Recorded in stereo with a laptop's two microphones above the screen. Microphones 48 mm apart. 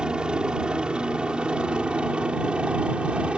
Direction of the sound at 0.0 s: 20° right (ahead or behind).